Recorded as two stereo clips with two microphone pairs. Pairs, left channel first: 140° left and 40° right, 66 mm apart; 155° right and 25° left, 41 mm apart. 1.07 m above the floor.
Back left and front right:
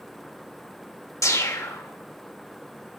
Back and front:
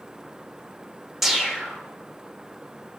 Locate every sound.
1.2 s a whoosh: 105° left, 1.4 m